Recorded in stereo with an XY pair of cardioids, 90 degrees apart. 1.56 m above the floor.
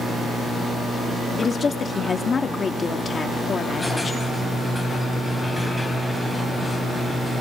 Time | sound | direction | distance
1.4 | a woman speaking | 45° left | 3 m
3.8 | a squeak | 10° left | 3.5 m